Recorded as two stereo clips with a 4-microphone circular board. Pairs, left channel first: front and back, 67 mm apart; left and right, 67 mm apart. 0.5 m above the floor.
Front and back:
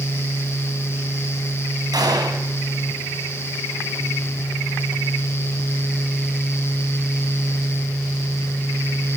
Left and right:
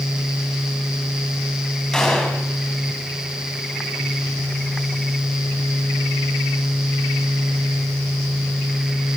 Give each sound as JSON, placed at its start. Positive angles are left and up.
{"t": 1.9, "sound": "a gunshot", "azimuth_deg": 170, "distance_m": 3.5}